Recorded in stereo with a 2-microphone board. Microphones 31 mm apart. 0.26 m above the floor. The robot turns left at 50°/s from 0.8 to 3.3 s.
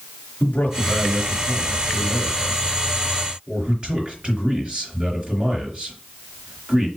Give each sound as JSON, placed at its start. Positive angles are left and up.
{"t": 0.4, "sound": "a man speaking", "azimuth_deg": 95, "distance_m": 4.0}